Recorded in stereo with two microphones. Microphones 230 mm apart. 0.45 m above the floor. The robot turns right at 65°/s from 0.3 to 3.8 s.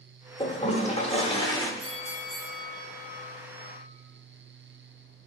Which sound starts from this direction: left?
A toilet flushing, at 0.4 s.